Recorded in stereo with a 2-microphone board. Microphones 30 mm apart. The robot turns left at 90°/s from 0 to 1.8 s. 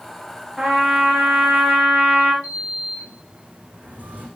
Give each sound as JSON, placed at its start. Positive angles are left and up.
{"t": 0.6, "sound": "a trumpet", "azimuth_deg": -10, "distance_m": 9.0}
{"t": 2.4, "sound": "a sliding door", "side_deg": -70, "distance_m": 9.0}